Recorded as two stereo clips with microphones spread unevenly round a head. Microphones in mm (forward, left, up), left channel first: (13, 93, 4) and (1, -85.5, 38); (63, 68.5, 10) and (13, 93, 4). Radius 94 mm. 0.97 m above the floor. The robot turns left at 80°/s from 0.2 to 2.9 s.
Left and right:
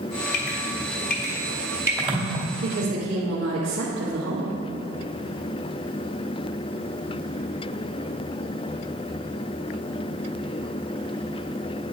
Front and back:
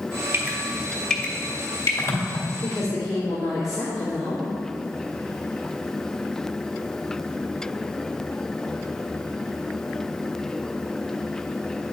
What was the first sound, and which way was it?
Dripping, 110° left.